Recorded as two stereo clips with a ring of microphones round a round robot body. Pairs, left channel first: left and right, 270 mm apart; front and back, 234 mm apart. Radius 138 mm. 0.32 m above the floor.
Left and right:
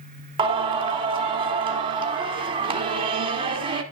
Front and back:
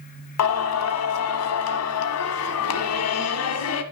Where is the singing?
20° right, 1.2 m.